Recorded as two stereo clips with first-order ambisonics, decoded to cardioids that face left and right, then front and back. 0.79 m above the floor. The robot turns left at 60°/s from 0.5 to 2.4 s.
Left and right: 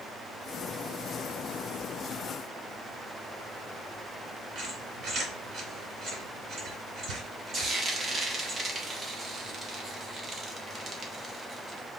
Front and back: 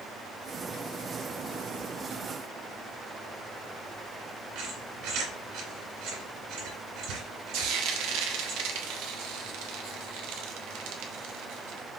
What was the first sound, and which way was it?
A squeak, 150° right.